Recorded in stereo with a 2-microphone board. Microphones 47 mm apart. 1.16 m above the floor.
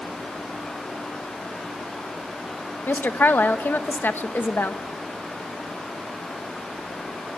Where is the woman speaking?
45° left (ahead or behind), 1.2 m.